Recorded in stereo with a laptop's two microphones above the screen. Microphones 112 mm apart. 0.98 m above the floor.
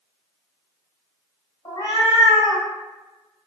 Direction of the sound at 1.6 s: 50° left (ahead or behind).